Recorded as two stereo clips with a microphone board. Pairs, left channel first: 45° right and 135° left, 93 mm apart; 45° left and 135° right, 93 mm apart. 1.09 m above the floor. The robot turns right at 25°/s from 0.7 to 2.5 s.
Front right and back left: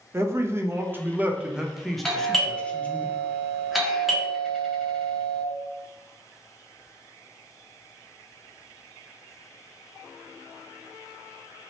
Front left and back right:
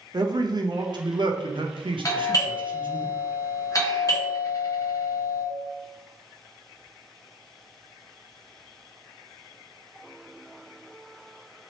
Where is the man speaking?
170° right, 0.5 m; by 3.0 s 125° right, 0.5 m.